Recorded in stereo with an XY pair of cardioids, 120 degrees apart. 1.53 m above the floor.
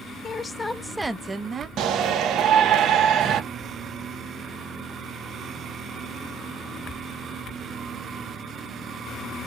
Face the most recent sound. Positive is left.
turn(degrees=-65)